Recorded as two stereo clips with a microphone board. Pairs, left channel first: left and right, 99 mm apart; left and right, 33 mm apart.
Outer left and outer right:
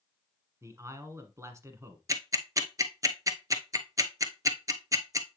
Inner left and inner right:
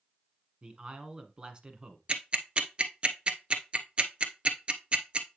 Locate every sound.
0.6 s a man speaking: 30° right (ahead or behind), 1.2 m
2.1 s ticking: 35° right (ahead or behind), 0.9 m